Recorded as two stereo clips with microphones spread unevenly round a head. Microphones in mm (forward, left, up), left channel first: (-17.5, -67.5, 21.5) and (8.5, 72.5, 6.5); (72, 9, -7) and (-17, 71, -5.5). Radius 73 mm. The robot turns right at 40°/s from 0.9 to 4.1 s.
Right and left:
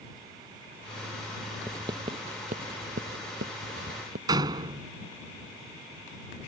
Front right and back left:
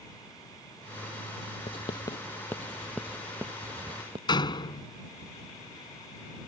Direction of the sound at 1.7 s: 5° left.